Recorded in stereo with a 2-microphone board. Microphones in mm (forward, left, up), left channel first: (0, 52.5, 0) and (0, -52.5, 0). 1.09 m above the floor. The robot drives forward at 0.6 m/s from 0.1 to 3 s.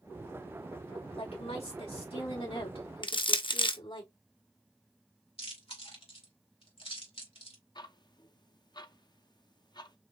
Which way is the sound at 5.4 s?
65° left (ahead or behind).